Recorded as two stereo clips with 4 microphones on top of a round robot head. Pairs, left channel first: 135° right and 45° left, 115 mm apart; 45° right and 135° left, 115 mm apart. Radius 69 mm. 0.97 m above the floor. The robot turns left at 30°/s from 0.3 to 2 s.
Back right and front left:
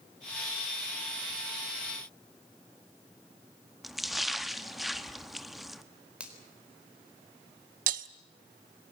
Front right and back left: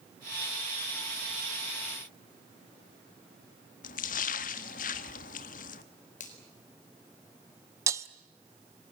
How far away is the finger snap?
About 4 m.